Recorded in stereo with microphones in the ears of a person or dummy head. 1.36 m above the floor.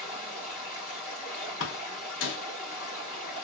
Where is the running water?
50° left (ahead or behind), 2 m.